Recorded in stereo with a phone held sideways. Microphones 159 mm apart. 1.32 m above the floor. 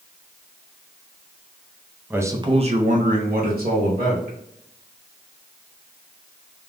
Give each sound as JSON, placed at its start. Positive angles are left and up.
{"t": 2.1, "sound": "a man speaking", "side_deg": -10, "distance_m": 0.5}